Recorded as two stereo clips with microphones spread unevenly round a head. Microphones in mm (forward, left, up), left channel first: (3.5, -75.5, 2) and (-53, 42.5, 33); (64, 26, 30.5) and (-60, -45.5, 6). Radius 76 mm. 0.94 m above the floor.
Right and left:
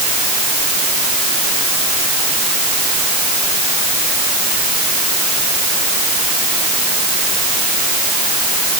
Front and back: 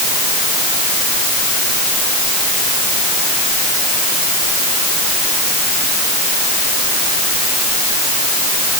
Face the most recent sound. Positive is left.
No sound to turn to.